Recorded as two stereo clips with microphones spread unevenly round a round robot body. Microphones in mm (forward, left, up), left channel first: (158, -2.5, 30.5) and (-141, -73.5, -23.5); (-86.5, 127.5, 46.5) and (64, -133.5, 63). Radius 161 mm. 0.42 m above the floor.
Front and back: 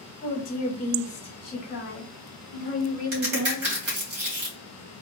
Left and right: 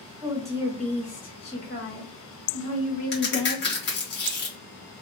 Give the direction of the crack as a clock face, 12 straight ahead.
6 o'clock.